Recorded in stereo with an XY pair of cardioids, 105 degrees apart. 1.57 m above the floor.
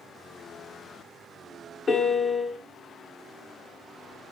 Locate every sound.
1.9 s a piano: 35° left, 0.6 m